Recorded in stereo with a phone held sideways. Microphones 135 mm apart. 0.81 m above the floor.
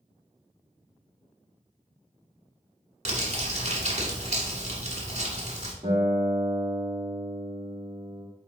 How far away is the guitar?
About 1.6 m.